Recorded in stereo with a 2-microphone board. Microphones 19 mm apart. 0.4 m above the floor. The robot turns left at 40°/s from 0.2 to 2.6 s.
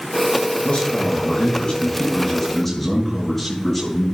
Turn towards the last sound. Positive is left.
turn(degrees=10)